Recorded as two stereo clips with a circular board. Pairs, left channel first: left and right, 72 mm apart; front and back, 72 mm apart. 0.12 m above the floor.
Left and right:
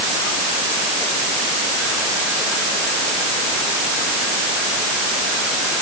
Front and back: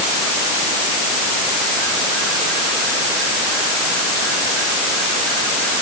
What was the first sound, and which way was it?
Only background noise.